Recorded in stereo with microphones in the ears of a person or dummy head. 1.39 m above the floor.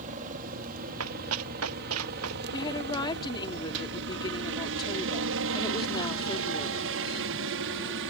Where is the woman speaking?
25° left (ahead or behind).